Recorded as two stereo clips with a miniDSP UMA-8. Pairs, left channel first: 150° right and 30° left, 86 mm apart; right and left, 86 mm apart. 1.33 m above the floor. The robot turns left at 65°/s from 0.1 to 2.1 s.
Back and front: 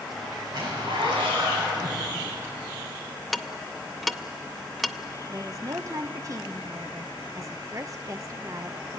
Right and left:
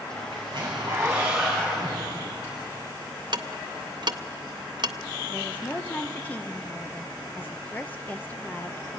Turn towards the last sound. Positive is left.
turn(degrees=-20)